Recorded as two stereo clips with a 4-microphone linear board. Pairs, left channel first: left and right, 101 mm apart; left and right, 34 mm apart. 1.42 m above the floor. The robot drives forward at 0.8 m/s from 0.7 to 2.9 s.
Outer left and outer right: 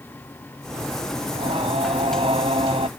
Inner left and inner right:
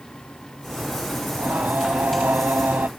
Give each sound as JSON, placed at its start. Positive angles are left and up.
{"t": 1.3, "sound": "singing", "side_deg": -70}